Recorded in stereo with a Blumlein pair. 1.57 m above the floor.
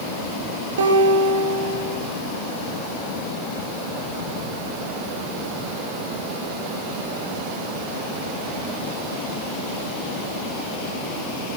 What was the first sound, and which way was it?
A guitar, 65° right.